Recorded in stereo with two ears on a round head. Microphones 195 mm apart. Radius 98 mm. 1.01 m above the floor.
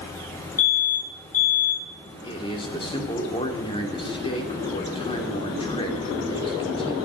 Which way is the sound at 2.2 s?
25° left (ahead or behind).